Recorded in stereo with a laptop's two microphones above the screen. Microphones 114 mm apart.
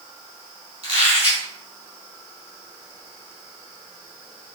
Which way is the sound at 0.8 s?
50° right (ahead or behind).